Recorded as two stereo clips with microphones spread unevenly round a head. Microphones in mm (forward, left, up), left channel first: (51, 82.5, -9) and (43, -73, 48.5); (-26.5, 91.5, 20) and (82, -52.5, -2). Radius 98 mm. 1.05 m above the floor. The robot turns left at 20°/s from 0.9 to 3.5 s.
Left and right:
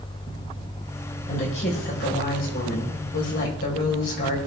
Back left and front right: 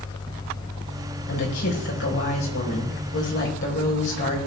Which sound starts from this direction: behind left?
A woman speaking, at 1.3 s.